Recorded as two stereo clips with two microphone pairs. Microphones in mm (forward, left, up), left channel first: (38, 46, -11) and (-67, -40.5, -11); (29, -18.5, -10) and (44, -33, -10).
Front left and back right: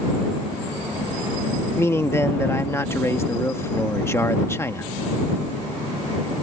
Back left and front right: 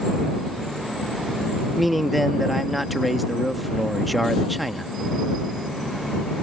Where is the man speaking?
35° left.